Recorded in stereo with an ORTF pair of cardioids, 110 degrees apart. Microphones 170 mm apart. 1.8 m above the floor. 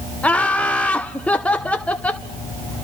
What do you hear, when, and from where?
0.2 s laughter: 10° left, 0.6 m